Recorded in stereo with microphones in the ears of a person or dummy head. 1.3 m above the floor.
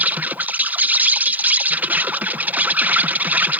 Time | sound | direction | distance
0.0 | an insect | 5° right (ahead or behind) | ?